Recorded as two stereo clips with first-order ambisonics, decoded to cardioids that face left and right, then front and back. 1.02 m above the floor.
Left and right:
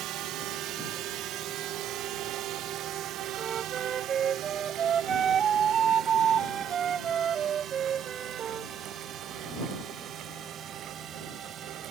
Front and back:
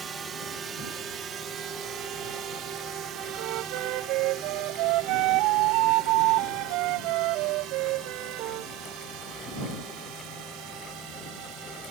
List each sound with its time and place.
0.0 s a drone: 120° right; by 11.9 s 150° right
3.4 s a flute: 155° right